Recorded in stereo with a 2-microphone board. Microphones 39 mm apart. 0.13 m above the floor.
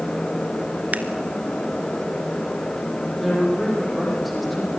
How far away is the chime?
I don't hear a chime.